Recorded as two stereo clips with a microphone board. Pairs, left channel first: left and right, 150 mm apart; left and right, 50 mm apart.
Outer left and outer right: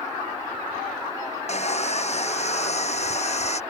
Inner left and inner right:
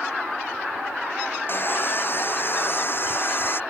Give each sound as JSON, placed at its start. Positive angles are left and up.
{"t": 1.5, "sound": "sawing", "side_deg": 45}